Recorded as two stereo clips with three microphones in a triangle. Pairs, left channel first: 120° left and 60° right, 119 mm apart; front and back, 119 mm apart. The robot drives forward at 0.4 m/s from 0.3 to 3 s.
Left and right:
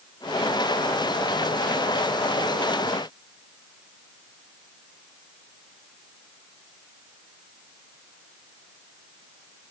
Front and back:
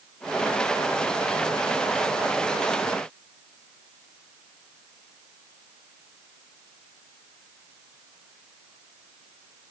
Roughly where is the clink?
I don't hear a clink.